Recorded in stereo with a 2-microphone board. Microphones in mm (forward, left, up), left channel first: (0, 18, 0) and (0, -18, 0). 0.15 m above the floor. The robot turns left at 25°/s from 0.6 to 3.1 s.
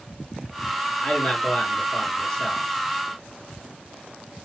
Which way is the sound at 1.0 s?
25° left (ahead or behind).